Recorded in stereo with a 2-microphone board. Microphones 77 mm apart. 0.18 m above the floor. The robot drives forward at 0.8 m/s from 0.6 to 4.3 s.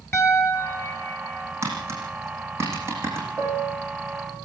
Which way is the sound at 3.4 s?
30° right (ahead or behind).